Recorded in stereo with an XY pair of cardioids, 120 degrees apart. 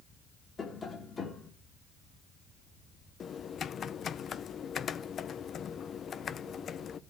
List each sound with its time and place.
0.6 s tapping: 30° left, 2 m
3.2 s typing on a keyboard: 45° left, 0.5 m